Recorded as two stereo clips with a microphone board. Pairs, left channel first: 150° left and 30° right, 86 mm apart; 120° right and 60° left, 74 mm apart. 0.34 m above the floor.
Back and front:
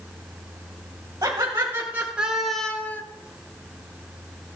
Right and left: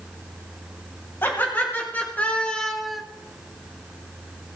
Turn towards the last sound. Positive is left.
turn(degrees=145)